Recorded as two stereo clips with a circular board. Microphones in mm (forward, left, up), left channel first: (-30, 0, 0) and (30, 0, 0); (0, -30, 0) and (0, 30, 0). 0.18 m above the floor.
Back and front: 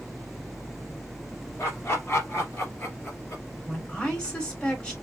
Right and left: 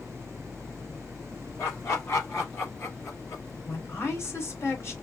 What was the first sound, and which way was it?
Laughter, 135° right.